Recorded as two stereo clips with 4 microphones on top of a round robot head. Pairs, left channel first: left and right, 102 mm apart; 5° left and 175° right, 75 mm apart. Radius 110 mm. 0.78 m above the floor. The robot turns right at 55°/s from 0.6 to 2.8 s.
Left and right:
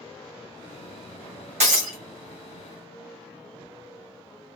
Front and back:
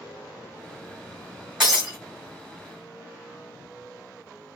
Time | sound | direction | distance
1.6 | breaking glass | 90° right | 1.2 m